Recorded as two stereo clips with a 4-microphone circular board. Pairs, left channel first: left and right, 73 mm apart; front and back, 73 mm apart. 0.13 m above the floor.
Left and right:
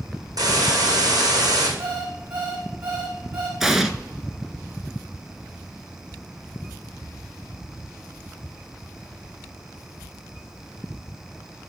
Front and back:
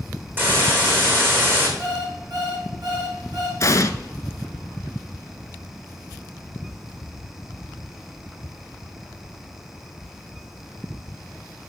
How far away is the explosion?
About 0.7 m.